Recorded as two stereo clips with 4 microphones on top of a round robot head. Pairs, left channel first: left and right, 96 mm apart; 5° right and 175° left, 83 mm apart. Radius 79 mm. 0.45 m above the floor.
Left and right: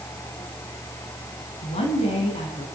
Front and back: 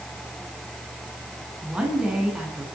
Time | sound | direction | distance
1.6 | a woman speaking | 95° left | 6 m